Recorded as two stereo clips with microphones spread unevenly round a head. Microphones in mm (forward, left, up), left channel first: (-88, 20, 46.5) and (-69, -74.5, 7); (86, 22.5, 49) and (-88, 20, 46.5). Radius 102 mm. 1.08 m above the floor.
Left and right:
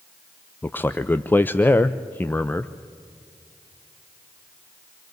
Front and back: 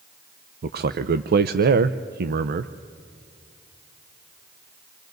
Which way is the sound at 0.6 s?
175° right.